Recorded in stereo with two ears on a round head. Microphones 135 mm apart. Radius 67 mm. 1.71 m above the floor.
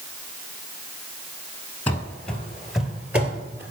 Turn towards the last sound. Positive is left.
turn(degrees=-15)  # may be behind; listen again after turning